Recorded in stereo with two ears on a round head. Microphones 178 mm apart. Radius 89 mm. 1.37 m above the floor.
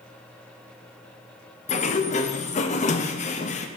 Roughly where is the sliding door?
Left.